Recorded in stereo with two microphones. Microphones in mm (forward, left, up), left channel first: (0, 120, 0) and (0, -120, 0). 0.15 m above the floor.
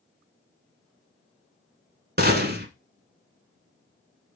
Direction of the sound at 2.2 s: 40° right (ahead or behind).